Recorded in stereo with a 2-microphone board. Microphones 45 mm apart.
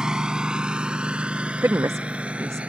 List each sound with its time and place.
0.0 s a lawn mower: 15° right (ahead or behind); by 2.7 s 30° right (ahead or behind)
1.6 s a woman speaking: 85° right